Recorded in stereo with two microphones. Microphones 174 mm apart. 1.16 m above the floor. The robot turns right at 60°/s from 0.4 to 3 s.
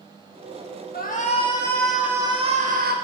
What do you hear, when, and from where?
0.9 s a shout: 120° left, 1.1 m; by 2.9 s 120° right, 1.1 m